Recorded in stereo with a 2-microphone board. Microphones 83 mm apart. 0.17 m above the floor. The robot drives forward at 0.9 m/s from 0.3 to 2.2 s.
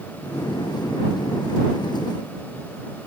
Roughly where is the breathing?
I don't hear breathing.